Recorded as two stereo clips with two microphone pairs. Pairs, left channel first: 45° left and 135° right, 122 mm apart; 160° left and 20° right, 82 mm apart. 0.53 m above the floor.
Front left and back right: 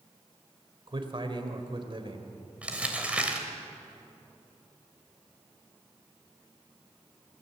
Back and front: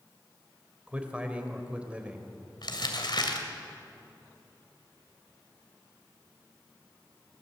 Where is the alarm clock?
I don't hear an alarm clock.